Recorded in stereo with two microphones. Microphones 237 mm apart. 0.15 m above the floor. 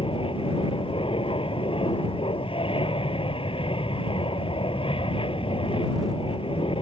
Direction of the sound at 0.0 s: 20° left (ahead or behind).